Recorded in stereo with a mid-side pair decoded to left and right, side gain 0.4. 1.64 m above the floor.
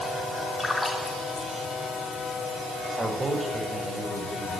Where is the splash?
25° left, 5 m.